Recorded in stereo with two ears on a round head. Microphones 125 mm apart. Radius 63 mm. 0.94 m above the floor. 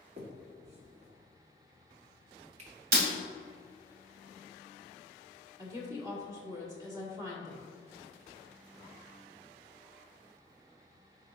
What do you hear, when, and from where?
0.2 s a finger snap: 50° right (ahead or behind), 1.4 m
2.9 s breaking glass: 65° right (ahead or behind), 1.7 m
5.6 s a woman speaking: 20° right (ahead or behind), 1.8 m